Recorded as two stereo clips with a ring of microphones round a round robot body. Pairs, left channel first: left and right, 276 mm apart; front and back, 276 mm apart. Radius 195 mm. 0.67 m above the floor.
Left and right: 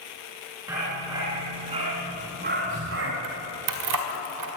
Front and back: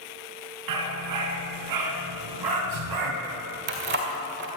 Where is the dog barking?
175° right, 3.5 m; by 3.1 s 150° right, 1.8 m.